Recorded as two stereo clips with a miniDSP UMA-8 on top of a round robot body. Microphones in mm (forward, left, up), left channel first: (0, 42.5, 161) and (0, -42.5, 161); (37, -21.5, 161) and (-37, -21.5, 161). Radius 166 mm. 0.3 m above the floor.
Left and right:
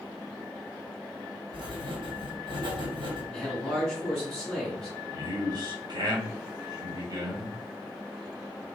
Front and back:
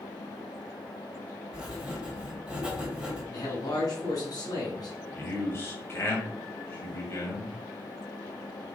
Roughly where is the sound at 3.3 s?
Ahead.